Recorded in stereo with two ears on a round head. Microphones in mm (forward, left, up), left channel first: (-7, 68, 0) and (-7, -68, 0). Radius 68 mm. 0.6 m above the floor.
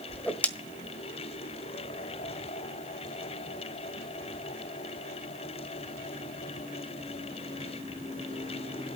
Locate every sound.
0.1 s a whoosh: 10° left (ahead or behind), 1.3 m